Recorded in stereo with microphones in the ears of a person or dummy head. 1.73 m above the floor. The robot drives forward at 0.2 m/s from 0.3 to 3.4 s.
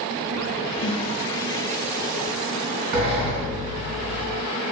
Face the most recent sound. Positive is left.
turn(degrees=-45)  # may be behind; listen again after turning